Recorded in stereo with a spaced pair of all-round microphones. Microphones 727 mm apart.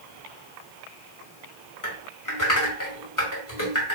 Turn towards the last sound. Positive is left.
turn(degrees=25)  # may be behind; listen again after turning